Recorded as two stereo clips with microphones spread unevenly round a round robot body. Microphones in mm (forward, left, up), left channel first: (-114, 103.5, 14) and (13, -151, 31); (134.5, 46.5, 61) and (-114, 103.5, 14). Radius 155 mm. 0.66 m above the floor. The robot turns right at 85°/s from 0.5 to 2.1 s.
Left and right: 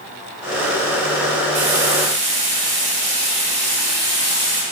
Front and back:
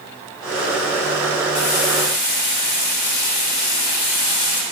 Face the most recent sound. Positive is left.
turn(degrees=-5)